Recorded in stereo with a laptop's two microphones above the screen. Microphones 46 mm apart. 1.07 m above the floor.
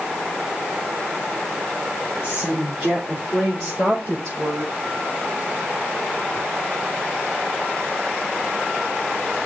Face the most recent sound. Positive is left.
turn(degrees=20)  # may be behind; listen again after turning